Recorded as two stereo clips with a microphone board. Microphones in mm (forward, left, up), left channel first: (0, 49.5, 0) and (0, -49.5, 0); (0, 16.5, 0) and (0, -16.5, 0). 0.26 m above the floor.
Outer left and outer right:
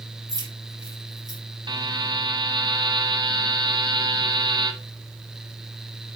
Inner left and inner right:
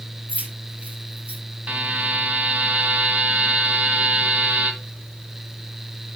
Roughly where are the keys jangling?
Right.